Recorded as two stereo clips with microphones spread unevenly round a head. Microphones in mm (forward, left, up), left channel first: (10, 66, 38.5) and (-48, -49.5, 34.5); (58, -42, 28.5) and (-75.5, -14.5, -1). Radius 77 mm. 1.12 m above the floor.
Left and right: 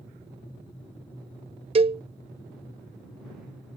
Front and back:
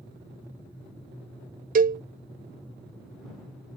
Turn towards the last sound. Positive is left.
turn(degrees=-160)